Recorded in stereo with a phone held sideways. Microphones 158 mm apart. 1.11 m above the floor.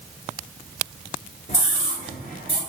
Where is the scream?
50° left (ahead or behind), 5 m; by 2.6 s 60° left (ahead or behind), 5 m.